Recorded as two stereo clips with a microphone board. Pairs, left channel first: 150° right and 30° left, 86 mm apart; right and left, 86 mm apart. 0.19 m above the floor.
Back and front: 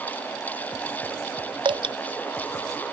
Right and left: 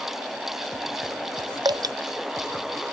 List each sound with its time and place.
1.6 s dripping: 50° left